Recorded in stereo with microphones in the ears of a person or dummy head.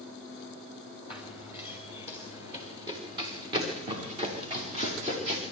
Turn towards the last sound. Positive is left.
turn(degrees=-40)  # may be behind; listen again after turning